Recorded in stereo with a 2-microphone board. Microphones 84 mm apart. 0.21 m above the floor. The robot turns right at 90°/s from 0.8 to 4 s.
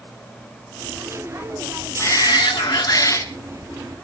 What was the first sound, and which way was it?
A shout, 35° left.